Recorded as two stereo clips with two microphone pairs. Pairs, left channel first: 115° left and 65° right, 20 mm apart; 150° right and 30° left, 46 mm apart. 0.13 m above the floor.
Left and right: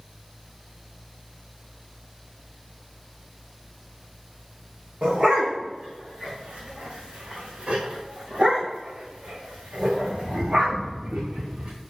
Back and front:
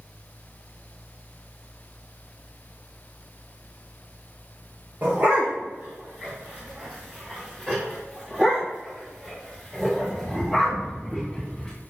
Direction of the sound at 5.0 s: 20° right.